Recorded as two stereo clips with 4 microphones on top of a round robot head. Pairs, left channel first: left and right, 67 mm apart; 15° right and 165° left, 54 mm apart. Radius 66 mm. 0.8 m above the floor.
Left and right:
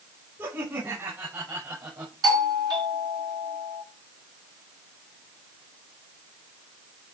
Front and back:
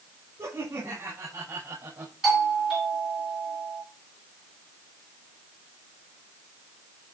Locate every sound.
0.4 s laughter: 145° right, 5.5 m; by 2.1 s 130° right, 5.5 m
2.2 s a doorbell: 110° right, 6.5 m